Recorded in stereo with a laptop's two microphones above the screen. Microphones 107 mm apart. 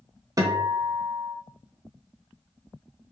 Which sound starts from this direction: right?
A guitar, at 0.4 s.